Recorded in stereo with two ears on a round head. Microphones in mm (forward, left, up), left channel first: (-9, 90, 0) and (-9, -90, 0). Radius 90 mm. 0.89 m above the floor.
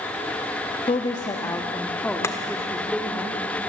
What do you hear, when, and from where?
0.9 s a woman speaking: 25° left (ahead or behind), 1.1 m; by 3.2 s centre (ahead or behind), 2 m
2.2 s chopping: 15° left (ahead or behind), 1.9 m